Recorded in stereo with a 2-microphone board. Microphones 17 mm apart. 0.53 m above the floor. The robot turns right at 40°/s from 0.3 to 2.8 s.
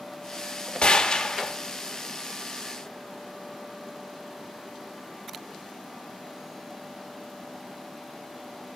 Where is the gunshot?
55° left (ahead or behind), 1.1 m; by 1.5 s 40° left (ahead or behind), 1.1 m.